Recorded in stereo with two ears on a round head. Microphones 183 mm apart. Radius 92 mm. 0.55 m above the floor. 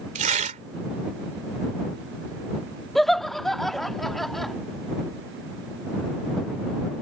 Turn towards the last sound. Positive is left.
turn(degrees=0)  # may be behind; listen again after turning